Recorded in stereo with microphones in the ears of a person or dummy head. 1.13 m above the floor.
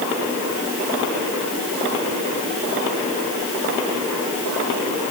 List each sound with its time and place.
Only background noise.